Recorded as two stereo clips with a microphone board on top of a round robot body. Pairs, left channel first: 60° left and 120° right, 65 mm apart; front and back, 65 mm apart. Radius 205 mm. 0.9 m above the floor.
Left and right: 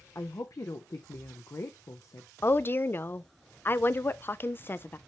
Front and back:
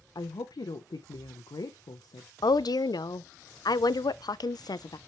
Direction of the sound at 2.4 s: 5° left.